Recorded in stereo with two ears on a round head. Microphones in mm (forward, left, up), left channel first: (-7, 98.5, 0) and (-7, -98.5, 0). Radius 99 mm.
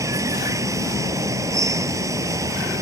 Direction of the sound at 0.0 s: 15° right (ahead or behind).